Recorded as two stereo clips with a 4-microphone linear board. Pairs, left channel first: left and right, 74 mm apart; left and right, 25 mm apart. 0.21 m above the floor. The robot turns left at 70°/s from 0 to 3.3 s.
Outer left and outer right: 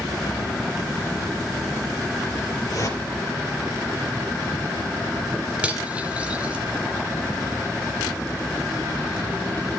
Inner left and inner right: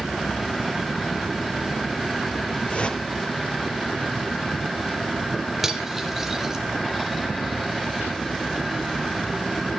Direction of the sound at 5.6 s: 15° right (ahead or behind).